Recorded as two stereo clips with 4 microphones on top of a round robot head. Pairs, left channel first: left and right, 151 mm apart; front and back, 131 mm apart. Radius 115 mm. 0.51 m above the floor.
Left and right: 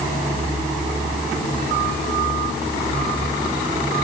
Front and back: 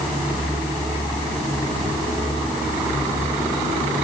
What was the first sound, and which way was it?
Only background noise.